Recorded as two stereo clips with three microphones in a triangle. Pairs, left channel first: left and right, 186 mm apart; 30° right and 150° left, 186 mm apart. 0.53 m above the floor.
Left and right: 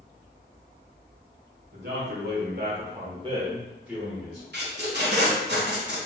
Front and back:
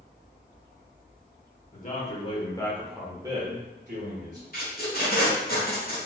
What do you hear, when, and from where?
1.7 s a man speaking: 70° right, 1.7 m; by 4.4 s 170° left, 1.7 m
4.5 s tape being pulled: 65° right, 1.3 m